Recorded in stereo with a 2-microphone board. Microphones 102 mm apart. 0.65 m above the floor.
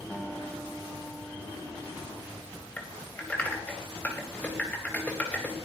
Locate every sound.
0.1 s a guitar: 15° left (ahead or behind), 3 m
2.8 s typing on a keyboard: 15° left (ahead or behind), 4 m